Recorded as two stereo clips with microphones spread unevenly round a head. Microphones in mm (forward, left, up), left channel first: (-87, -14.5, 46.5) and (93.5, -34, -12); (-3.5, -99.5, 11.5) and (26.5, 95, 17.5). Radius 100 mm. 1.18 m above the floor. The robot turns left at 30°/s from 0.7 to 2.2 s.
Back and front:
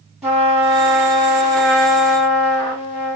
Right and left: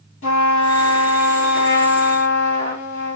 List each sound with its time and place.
0.2 s a trumpet: 105° right, 1.7 m; by 3.1 s 150° right, 1.7 m